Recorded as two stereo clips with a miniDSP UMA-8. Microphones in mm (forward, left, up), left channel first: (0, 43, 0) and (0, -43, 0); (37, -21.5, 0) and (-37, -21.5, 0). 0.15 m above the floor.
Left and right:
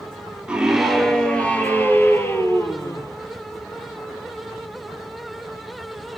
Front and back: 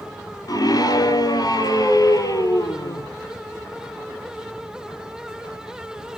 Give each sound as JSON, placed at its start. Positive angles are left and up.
{"t": 0.5, "sound": "a scream", "azimuth_deg": -10, "distance_m": 2.5}